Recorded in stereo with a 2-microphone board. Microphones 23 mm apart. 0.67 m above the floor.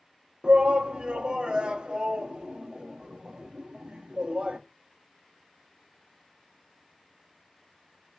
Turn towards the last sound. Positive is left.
turn(degrees=-40)  # may be behind; listen again after turning